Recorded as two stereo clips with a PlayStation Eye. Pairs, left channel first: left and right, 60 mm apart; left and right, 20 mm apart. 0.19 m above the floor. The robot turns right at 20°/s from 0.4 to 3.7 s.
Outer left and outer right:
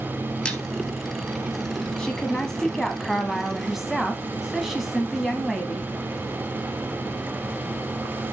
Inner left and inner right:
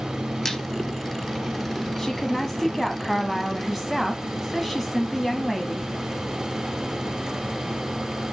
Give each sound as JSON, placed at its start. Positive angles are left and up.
{"t": 0.5, "sound": "a squeak", "side_deg": 15, "distance_m": 2.0}
{"t": 2.0, "sound": "a woman speaking", "azimuth_deg": 150, "distance_m": 1.1}